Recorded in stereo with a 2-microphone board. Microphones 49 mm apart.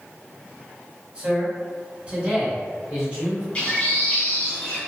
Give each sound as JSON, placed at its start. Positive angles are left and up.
{"t": 1.1, "sound": "a man speaking", "side_deg": -25, "distance_m": 1.5}
{"t": 3.5, "sound": "a bird", "side_deg": 25, "distance_m": 1.3}